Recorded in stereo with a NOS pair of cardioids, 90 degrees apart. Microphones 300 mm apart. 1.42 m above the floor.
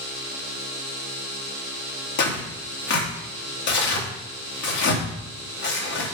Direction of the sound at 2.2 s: 70° left.